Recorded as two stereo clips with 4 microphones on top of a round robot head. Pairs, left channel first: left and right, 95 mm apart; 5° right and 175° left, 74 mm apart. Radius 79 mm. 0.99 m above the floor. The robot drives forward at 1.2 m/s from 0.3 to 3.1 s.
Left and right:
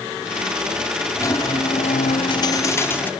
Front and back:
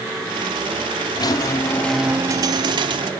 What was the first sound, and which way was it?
A squeak, 25° left.